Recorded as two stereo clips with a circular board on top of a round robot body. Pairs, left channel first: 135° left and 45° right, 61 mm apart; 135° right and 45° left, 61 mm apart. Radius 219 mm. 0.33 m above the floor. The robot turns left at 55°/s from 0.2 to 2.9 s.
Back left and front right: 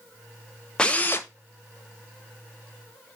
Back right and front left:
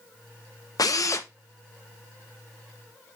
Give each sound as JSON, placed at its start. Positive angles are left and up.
{"t": 0.8, "sound": "a drill", "azimuth_deg": -150, "distance_m": 0.8}